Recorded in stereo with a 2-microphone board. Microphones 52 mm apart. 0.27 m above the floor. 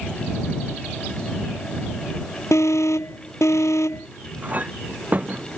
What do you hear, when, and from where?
2.5 s an alarm: 80° left
4.4 s a clink: 35° right (ahead or behind)